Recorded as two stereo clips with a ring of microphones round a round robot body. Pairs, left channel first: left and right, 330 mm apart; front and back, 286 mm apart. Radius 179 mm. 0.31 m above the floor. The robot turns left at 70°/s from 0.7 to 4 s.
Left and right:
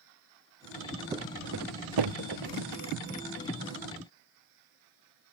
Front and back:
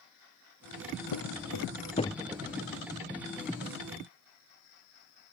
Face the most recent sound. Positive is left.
turn(degrees=140)